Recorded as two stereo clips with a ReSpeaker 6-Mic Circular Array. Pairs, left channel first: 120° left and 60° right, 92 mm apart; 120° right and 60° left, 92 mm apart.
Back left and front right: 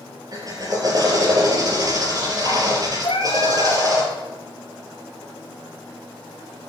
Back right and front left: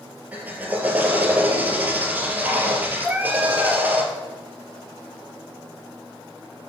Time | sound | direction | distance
0.3 | a drill | 10° right | 3.5 m
3.0 | a cat meowing | 130° left | 2 m